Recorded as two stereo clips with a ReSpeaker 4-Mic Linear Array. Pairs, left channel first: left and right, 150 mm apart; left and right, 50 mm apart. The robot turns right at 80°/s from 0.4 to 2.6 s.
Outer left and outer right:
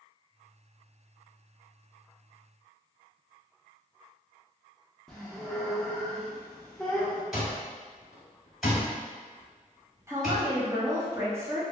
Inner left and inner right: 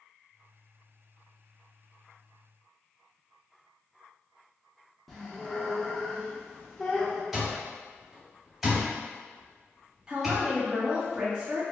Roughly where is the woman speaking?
Centre.